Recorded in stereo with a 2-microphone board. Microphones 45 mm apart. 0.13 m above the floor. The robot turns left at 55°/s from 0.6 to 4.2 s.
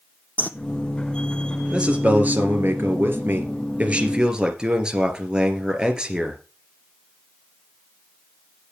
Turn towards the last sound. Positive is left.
turn(degrees=-160)